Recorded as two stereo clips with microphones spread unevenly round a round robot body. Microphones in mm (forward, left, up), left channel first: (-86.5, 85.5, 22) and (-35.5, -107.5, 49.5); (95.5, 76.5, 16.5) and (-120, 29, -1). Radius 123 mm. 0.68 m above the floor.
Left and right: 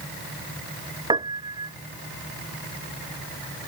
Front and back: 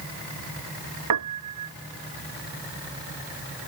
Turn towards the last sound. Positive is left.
turn(degrees=-140)